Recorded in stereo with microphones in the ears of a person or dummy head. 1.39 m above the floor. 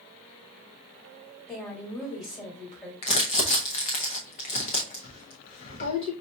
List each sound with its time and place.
1.5 s a woman speaking: 25° left (ahead or behind), 1.6 m
3.0 s crumpling: 25° left (ahead or behind), 0.6 m